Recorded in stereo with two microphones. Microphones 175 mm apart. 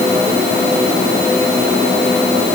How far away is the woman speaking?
No woman speaking in this recording.